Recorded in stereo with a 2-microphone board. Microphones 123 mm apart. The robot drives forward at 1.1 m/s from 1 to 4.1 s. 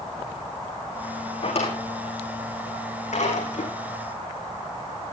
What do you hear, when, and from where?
1.4 s a drawer: 60° left (ahead or behind), 6 m; by 3.7 s 85° left, 5 m